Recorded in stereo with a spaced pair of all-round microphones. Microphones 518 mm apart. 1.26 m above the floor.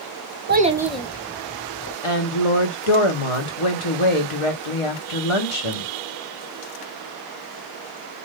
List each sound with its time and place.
0.5 s a child speaking: 25° right (ahead or behind), 0.5 m; by 1.9 s 25° left (ahead or behind), 1.1 m
2.0 s a woman speaking: 70° left (ahead or behind), 1.1 m